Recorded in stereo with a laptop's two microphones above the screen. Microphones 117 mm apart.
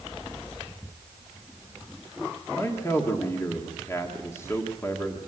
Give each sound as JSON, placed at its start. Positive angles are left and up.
{"t": 2.6, "sound": "a man speaking", "side_deg": 25, "distance_m": 1.6}